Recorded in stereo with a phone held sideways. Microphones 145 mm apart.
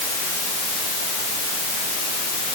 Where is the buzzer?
No buzzer in this recording.